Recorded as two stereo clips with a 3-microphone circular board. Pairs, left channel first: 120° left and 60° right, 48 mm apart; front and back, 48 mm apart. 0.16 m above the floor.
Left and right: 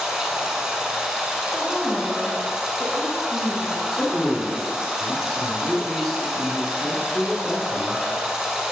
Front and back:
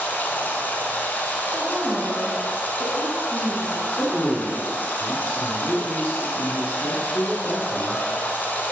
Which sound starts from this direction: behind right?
A woman speaking, at 1.5 s.